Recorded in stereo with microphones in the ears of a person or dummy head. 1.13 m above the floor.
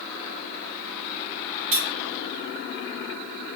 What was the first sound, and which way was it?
Cutlery clinking, 65° right (ahead or behind).